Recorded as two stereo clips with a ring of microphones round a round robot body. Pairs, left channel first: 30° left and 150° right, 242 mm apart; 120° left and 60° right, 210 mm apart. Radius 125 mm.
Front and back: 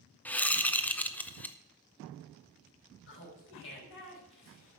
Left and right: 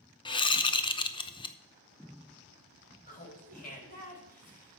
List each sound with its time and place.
0.2 s a whoosh: 105° left, 0.8 m
3.1 s laughter: 70° left, 5 m